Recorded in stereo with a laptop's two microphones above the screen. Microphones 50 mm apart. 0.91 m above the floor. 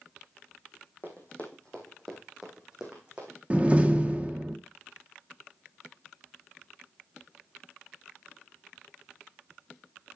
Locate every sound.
1.0 s running footsteps: 40° left (ahead or behind), 3 m; by 3.4 s 25° right (ahead or behind), 3.5 m
3.5 s a door slam: 25° right (ahead or behind), 1.2 m